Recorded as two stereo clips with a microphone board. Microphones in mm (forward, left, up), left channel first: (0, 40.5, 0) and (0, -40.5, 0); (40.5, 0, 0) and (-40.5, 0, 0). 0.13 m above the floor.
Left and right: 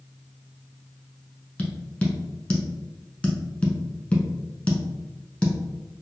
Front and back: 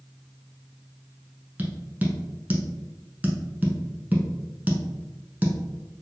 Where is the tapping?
145° left, 0.8 m.